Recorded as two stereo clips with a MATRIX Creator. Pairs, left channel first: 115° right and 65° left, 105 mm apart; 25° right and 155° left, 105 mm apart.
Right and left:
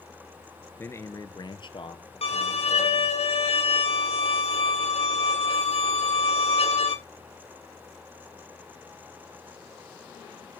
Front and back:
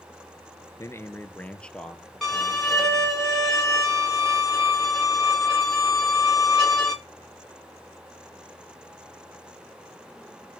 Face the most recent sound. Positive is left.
turn(degrees=-110)